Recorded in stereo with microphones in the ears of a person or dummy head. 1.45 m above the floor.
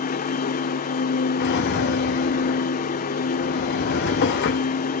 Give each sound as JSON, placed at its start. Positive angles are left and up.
{"t": 0.0, "sound": "a machine running", "side_deg": 40, "distance_m": 0.7}
{"t": 1.4, "sound": "a drawer", "side_deg": 55, "distance_m": 1.5}